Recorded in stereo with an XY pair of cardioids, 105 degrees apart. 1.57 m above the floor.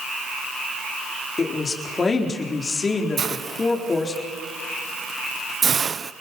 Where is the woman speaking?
30° left, 4 m.